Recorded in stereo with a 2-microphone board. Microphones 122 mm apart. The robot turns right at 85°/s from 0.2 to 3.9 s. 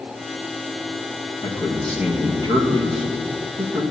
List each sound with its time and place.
1.4 s a man speaking: 135° left, 1.4 m; by 3.8 s 20° right, 1.4 m